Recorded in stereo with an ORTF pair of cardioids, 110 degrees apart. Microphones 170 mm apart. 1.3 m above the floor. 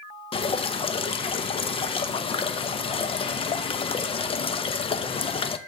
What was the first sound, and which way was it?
Dripping, 35° left.